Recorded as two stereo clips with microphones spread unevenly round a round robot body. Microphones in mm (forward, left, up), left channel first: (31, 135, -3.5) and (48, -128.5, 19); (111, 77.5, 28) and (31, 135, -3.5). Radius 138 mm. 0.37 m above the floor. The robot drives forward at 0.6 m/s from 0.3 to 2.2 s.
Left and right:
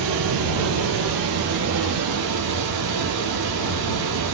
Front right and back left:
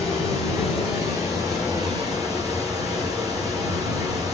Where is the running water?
105° right, 4 m; by 4.3 s 120° right, 4.5 m.